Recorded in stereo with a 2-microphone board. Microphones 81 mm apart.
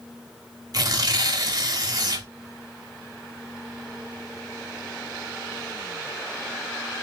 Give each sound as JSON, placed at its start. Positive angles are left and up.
{"t": 0.7, "sound": "tearing paper", "side_deg": -50, "distance_m": 0.7}